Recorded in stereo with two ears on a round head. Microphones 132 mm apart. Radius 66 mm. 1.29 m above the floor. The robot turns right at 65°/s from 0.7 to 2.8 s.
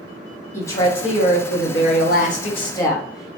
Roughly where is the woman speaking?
Ahead.